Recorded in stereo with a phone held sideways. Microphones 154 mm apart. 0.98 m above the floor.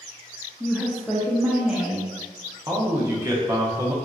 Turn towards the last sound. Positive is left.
turn(degrees=-20)  # may be behind; listen again after turning